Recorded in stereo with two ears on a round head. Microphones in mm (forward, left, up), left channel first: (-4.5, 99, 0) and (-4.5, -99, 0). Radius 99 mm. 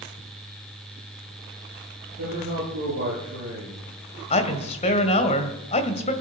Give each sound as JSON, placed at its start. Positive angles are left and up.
{"t": 2.2, "sound": "a man speaking", "side_deg": -60, "distance_m": 10.0}
{"t": 4.3, "sound": "a woman speaking", "side_deg": 30, "distance_m": 2.0}